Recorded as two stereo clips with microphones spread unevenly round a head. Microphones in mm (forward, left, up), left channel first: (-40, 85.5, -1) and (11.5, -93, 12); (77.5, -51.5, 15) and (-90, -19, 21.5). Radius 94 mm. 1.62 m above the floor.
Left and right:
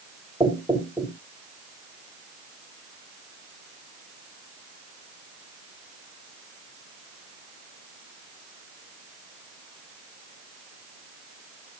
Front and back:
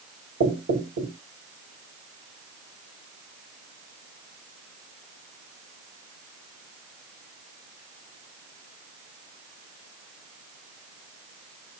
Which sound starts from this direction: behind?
Knocking, at 0.4 s.